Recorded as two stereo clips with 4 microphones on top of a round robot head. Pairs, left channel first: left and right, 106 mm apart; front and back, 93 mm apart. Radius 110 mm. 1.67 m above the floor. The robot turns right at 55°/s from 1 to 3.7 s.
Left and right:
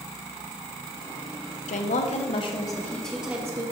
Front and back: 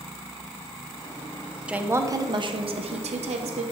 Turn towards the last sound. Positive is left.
turn(degrees=-150)